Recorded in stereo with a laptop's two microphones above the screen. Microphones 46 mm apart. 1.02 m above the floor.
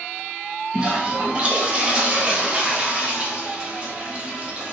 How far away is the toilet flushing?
About 0.7 m.